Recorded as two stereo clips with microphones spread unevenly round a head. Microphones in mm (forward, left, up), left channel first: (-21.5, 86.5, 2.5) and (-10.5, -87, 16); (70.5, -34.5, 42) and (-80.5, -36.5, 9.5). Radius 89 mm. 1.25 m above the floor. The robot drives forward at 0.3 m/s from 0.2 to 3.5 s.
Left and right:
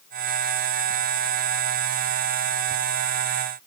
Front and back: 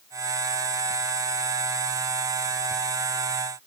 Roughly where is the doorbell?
I don't hear a doorbell.